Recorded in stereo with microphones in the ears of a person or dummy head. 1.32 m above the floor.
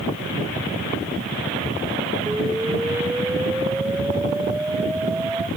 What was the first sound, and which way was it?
An explosion, 10° right (ahead or behind).